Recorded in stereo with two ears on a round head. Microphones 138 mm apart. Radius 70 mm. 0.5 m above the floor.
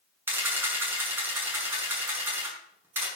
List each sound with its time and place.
0.3 s a camera shutter: 15° right (ahead or behind), 7 m